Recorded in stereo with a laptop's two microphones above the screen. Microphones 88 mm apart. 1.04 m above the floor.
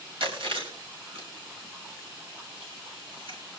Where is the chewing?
75° right (ahead or behind), 6 m.